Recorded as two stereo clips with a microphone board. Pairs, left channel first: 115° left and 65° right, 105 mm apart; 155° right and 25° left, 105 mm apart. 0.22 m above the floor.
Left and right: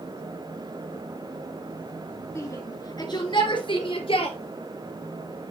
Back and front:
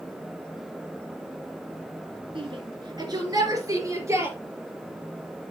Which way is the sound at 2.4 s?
50° left.